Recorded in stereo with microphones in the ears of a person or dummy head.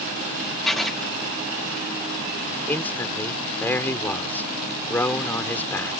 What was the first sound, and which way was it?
Writing, 5° right (ahead or behind).